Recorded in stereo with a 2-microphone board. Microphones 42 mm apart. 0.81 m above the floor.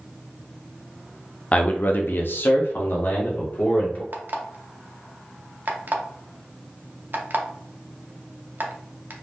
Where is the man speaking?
35° left (ahead or behind), 0.7 m; by 4.0 s 45° left (ahead or behind), 1.6 m.